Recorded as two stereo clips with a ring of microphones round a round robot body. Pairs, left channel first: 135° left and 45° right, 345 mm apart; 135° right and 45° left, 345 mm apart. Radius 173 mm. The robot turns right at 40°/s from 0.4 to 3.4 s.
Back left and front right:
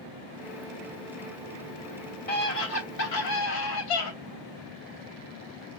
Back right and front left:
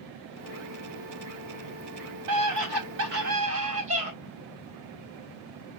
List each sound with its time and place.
2.3 s a scream: 70° left, 3 m; by 4.1 s 115° left, 3 m